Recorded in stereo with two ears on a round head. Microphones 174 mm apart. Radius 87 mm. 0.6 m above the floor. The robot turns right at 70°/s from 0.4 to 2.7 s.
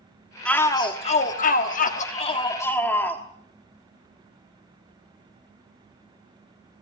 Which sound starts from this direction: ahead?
A shout, at 0.5 s.